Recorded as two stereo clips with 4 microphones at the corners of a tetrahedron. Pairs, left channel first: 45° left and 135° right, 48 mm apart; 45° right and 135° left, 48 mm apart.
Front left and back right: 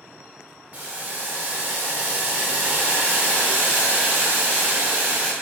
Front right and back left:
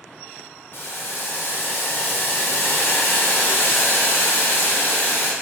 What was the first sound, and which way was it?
Boiling, 80° right.